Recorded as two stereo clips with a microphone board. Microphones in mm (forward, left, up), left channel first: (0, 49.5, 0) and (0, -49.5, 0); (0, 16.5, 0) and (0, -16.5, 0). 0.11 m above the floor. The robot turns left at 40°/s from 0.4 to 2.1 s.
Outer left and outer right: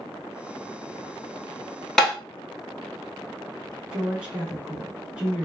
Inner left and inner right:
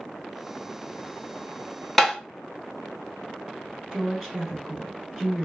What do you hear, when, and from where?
2.0 s tapping: 5° left (ahead or behind), 0.7 m; by 2.1 s centre (ahead or behind), 0.7 m
3.9 s a woman speaking: 10° right (ahead or behind), 1.1 m